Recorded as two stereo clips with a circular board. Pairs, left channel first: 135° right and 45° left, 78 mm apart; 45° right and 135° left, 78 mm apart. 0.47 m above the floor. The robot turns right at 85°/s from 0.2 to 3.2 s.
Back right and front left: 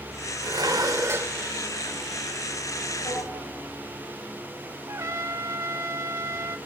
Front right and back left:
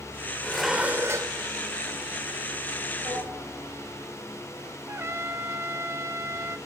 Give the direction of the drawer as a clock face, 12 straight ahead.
6 o'clock.